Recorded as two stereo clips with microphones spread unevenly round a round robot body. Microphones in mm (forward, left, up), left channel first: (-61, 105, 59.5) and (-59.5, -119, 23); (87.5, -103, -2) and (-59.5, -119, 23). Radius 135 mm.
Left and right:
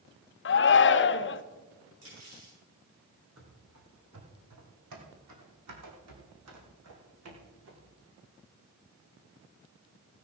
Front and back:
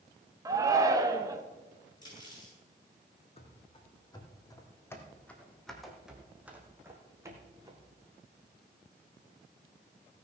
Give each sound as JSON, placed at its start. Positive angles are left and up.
{"t": 0.5, "sound": "a shout", "azimuth_deg": 110, "distance_m": 0.7}
{"t": 2.0, "sound": "cutlery clinking", "azimuth_deg": -55, "distance_m": 7.5}
{"t": 3.4, "sound": "running footsteps", "azimuth_deg": -45, "distance_m": 2.5}